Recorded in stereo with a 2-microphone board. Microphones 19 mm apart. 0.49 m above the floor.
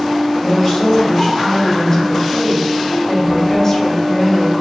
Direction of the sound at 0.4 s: 25° left (ahead or behind).